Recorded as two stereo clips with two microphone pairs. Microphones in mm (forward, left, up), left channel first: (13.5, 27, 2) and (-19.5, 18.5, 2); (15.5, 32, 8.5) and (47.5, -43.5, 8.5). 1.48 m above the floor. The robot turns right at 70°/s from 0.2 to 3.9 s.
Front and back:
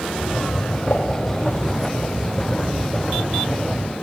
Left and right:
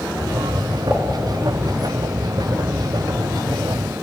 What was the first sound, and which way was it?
A pop, 10° left.